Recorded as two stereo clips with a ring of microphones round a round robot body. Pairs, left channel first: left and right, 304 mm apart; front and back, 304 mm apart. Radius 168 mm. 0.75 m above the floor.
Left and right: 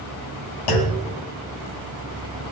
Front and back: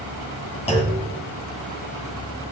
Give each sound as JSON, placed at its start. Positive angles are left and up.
{"t": 0.7, "sound": "a clunk", "azimuth_deg": 75, "distance_m": 1.9}